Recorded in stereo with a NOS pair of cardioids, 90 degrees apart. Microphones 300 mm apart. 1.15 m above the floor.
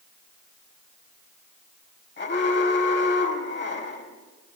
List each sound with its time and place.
2.2 s an alarm: 35° left, 4.5 m